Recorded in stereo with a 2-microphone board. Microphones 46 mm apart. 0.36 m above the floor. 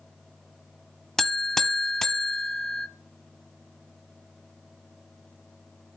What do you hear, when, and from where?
1.2 s a buzzer: 10° left (ahead or behind), 0.7 m